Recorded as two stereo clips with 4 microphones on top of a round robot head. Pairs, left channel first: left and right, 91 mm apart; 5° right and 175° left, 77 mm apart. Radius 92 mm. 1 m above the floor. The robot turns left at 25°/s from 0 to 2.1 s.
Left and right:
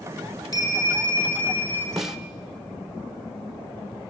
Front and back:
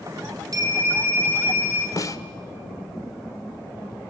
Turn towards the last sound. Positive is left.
turn(degrees=-10)